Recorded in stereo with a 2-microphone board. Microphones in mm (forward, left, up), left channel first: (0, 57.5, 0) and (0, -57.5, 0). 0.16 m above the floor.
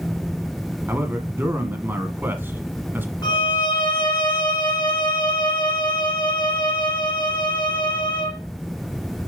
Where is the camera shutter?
No camera shutter in this recording.